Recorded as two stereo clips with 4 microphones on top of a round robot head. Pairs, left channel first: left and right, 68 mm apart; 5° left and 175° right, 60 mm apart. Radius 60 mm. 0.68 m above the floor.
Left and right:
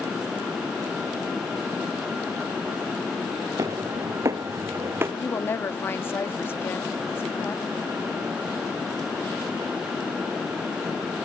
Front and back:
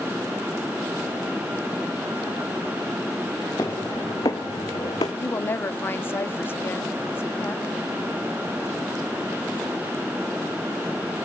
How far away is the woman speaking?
About 1.6 m.